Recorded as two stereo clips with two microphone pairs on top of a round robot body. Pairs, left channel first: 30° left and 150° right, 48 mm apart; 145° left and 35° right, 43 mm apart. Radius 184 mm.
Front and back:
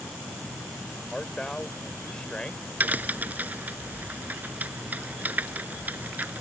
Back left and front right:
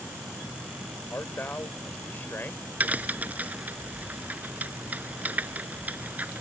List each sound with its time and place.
1.1 s a man speaking: 105° left
2.8 s a crack: 90° right